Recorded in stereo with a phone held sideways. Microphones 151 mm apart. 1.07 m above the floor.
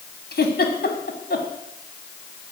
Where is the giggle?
85° left, 2.5 m.